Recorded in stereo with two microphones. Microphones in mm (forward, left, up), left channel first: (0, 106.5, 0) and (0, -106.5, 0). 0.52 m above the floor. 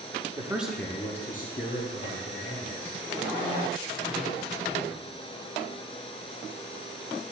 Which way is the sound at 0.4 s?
15° right (ahead or behind).